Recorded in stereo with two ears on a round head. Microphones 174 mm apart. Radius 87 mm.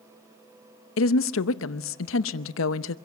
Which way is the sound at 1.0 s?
75° left (ahead or behind).